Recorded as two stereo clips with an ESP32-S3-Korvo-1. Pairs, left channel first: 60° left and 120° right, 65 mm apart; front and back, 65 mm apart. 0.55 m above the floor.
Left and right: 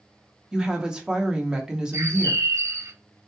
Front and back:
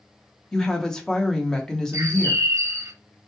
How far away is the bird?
About 0.5 m.